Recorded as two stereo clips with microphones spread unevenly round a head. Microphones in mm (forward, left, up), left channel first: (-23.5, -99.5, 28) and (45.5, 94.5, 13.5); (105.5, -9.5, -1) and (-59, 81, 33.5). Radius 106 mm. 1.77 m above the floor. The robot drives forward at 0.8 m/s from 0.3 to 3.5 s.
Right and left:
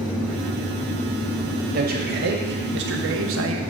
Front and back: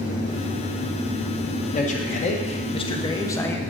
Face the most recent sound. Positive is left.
turn(degrees=55)